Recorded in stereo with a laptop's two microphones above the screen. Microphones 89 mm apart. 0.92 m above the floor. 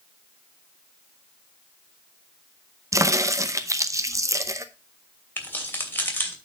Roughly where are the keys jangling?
Left.